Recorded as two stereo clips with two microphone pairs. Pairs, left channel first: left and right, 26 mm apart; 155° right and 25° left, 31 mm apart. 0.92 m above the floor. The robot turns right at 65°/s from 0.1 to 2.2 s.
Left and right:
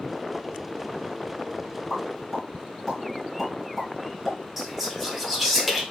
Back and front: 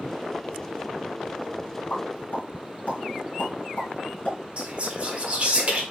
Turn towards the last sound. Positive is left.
turn(degrees=-10)